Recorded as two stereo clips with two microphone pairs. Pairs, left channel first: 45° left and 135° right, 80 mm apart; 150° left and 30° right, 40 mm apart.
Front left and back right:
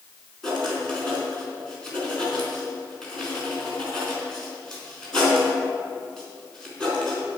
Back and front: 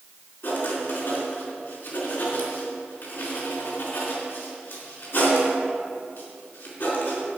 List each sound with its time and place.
0.4 s writing: 125° left, 4 m